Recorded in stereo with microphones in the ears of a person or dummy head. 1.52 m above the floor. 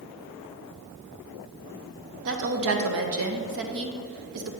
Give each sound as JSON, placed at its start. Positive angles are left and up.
{"t": 2.2, "sound": "a woman speaking", "side_deg": -65, "distance_m": 0.9}